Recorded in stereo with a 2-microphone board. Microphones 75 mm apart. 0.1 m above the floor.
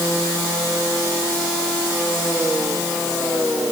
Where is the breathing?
I don't hear breathing.